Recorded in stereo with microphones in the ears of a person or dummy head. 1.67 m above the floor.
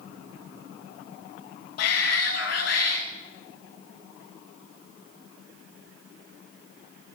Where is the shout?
60° left (ahead or behind), 1.1 m.